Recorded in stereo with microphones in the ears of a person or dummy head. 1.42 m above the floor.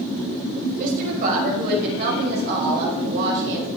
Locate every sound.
0.8 s a woman speaking: 50° right (ahead or behind), 6 m; by 3.7 s 75° right (ahead or behind), 4.5 m